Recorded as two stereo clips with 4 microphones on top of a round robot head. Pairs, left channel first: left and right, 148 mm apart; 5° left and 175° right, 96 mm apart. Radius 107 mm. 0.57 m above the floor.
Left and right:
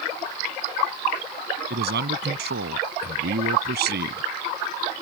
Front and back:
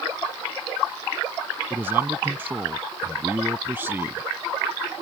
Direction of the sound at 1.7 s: 100° right.